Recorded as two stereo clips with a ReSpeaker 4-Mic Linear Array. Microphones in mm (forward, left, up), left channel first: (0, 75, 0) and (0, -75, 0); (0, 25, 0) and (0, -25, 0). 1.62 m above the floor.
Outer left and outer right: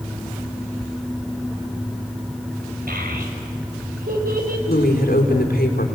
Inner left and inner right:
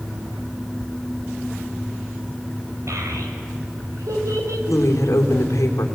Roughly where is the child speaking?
Right.